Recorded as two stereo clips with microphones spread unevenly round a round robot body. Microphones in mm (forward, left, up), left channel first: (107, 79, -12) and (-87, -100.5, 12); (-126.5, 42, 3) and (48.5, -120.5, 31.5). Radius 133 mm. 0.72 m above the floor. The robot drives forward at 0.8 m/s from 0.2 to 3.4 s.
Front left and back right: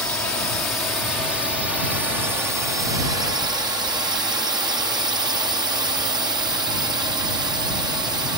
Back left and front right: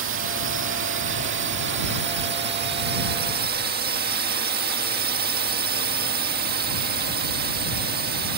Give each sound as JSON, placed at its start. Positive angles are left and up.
{"t": 0.0, "sound": "a drone", "azimuth_deg": -40}